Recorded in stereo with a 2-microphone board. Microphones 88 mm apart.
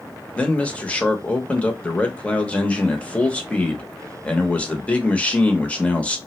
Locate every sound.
0.3 s a man speaking: 15° left (ahead or behind), 0.7 m